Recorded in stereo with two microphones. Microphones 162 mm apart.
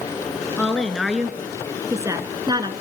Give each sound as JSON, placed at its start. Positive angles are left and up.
{"t": 0.6, "sound": "a woman speaking", "side_deg": 5, "distance_m": 2.0}